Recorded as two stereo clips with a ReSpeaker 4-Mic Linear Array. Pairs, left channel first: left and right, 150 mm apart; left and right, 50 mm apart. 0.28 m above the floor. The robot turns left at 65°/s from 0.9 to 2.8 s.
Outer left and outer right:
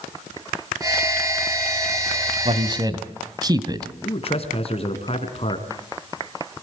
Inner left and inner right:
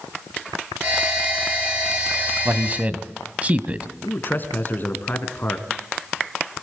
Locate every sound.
2.5 s a man speaking: 45° right (ahead or behind), 1.5 m; by 3.9 s 30° right (ahead or behind), 1.5 m
4.0 s a man speaking: 40° left (ahead or behind), 2.5 m